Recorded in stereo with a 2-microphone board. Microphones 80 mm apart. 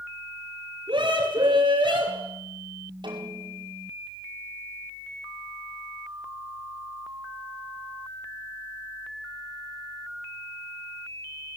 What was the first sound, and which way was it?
A scream, 65° right (ahead or behind).